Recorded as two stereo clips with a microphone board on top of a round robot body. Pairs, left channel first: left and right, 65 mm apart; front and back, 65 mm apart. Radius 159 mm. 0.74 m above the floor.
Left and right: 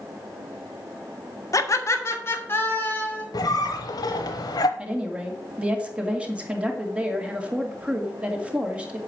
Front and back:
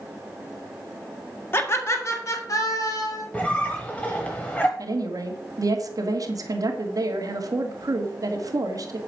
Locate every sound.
1.5 s laughter: 55° left, 2 m; by 3.2 s 25° left, 4 m
3.3 s a squeak: 75° left, 0.7 m
4.8 s a woman speaking: 165° right, 2.5 m